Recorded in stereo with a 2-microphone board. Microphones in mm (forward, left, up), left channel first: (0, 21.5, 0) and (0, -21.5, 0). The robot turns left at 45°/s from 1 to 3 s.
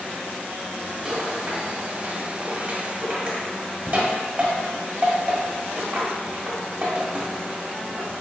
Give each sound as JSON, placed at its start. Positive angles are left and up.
{"t": 1.1, "sound": "a rattle", "side_deg": -15, "distance_m": 1.3}